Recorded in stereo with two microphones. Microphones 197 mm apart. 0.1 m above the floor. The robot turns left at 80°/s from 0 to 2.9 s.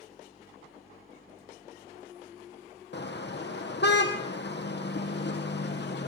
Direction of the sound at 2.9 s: 65° left (ahead or behind).